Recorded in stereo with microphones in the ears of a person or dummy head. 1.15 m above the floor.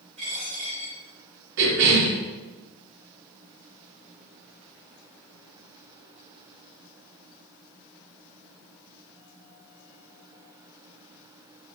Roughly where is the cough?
Right.